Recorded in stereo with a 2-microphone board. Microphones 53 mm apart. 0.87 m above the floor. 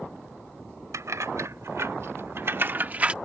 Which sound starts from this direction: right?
Keys jangling, at 0.9 s.